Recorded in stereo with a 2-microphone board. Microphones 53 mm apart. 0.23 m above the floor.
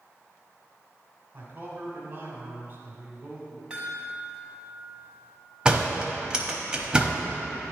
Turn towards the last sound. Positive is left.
turn(degrees=-15)  # may be behind; listen again after turning